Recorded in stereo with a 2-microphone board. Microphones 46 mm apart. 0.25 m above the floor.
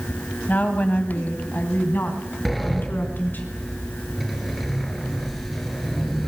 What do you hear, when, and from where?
0.5 s a woman speaking: 35° left (ahead or behind), 1.6 m; by 3.5 s 45° left (ahead or behind), 2.5 m
2.5 s a sliding door: centre (ahead or behind), 1.3 m